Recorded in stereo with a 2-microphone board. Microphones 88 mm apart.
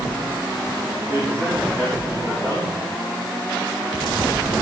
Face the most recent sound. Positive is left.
turn(degrees=-25)  # may be behind; listen again after turning